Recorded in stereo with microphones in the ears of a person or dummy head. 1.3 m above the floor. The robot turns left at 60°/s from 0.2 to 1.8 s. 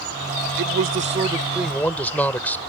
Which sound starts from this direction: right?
A man speaking, at 0.6 s.